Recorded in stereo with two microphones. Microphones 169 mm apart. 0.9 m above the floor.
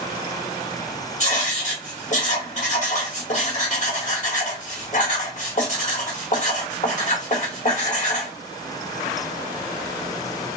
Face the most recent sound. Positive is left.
turn(degrees=45)  # may be behind; listen again after turning